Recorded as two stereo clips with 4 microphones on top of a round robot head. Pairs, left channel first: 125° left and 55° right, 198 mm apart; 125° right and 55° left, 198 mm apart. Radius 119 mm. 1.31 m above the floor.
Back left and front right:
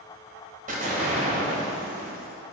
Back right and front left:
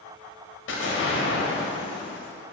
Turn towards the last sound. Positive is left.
turn(degrees=-105)